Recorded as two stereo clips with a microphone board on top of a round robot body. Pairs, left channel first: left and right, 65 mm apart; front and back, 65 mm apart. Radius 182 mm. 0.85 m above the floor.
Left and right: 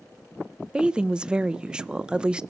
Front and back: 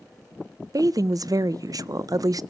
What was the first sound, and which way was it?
A woman speaking, 165° right.